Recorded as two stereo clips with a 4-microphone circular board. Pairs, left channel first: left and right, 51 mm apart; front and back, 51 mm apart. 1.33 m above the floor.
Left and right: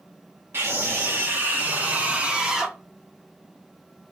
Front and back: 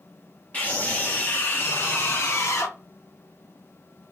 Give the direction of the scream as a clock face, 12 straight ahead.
2 o'clock.